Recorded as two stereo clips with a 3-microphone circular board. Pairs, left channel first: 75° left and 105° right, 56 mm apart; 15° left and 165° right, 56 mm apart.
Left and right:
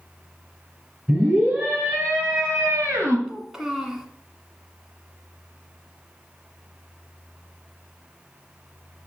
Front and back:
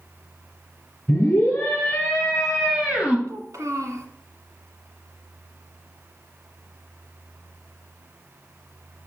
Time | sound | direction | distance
1.1 | a scream | 35° right | 3.5 m
3.3 | a child speaking | 175° left | 1.4 m